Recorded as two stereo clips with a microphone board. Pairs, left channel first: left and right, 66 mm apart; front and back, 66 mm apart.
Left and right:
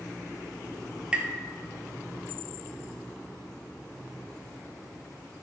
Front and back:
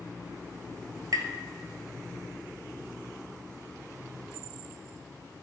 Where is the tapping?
160° right, 0.9 m.